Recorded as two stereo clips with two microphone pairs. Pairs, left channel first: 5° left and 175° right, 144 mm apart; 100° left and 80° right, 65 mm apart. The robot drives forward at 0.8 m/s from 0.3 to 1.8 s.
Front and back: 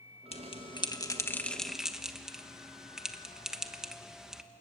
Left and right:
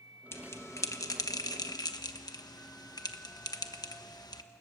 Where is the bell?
50° left, 1.5 m; by 4.4 s 100° left, 1.2 m.